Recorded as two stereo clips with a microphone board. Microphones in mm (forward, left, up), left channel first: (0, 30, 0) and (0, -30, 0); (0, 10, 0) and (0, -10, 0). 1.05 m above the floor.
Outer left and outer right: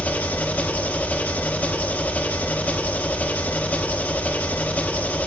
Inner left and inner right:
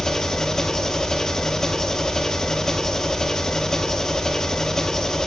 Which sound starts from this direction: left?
An engine running, at 0.0 s.